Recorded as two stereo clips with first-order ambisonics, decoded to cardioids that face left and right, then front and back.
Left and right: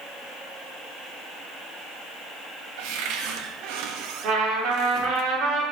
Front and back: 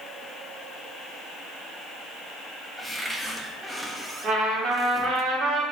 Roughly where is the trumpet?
Behind right.